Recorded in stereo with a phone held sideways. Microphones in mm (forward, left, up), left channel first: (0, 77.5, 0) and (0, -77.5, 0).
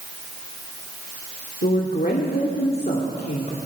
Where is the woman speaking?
80° left, 2 m.